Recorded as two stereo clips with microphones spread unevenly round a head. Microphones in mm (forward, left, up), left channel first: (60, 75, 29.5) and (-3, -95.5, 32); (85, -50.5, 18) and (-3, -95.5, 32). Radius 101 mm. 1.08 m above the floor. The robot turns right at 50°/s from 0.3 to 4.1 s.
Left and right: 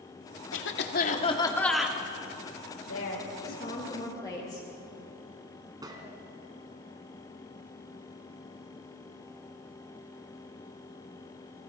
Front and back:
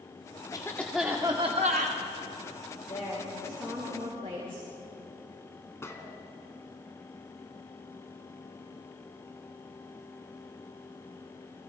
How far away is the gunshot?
About 3 m.